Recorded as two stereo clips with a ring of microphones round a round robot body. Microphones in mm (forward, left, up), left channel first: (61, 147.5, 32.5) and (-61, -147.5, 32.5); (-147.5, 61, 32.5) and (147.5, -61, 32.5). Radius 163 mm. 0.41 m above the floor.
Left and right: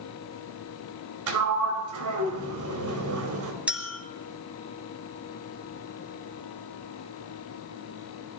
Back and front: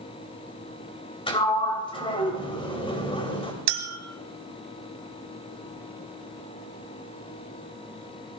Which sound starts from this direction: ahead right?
A clink, at 3.7 s.